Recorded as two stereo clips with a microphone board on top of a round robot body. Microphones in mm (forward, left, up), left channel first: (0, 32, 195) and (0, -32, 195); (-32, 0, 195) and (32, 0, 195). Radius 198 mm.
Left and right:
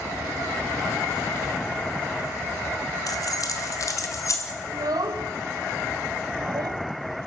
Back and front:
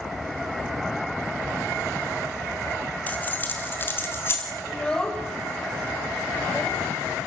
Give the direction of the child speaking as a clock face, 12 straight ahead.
3 o'clock.